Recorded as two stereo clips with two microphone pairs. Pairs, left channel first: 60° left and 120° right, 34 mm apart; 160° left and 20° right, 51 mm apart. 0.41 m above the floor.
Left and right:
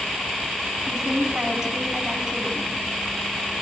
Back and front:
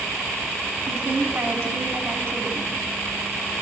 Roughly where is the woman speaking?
Ahead right.